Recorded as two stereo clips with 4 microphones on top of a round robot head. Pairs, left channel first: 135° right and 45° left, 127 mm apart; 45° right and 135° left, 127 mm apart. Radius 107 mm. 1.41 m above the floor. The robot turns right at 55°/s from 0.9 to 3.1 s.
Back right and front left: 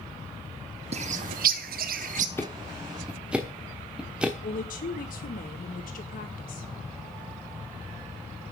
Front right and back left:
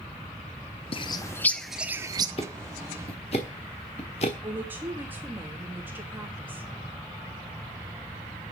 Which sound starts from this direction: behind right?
A woman speaking, at 4.4 s.